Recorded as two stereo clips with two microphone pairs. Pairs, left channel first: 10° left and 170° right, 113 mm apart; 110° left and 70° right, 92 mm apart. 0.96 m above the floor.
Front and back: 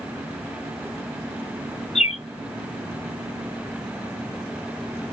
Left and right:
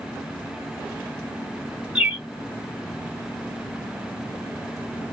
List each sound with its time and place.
1.9 s a bird: straight ahead, 0.7 m